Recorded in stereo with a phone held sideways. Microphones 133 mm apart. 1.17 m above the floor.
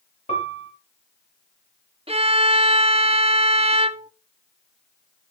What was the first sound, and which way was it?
A piano, 55° left (ahead or behind).